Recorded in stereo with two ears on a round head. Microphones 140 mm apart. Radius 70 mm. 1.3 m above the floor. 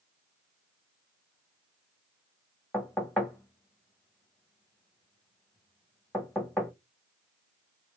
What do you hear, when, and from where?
2.7 s knocking: 5° left (ahead or behind), 1.0 m